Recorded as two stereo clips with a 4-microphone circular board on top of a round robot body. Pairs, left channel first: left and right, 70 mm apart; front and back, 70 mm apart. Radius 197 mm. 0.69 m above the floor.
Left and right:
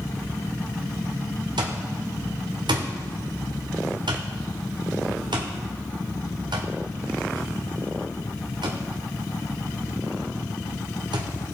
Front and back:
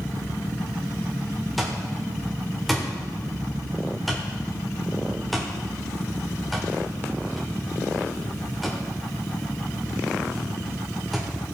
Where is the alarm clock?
90° right, 0.9 m.